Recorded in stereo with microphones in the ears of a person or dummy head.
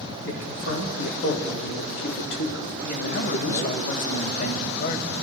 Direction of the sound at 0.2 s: 80° left.